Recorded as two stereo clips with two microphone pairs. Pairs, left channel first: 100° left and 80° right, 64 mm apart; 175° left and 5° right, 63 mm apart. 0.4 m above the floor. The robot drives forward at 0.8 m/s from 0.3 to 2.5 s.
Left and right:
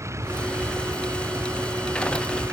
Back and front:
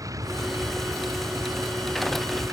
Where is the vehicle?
35° right.